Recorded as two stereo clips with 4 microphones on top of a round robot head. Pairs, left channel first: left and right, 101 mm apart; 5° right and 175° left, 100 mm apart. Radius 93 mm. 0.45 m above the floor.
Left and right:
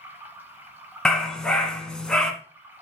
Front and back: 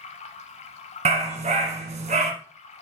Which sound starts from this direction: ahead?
Running water, at 0.0 s.